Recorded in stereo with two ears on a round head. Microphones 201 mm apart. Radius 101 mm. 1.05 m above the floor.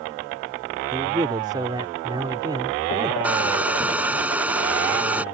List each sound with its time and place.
0.9 s a man speaking: 20° right (ahead or behind)
3.2 s a hair dryer: 5° right (ahead or behind)